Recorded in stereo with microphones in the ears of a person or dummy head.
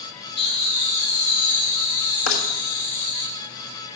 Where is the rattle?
75° left (ahead or behind), 1.5 m.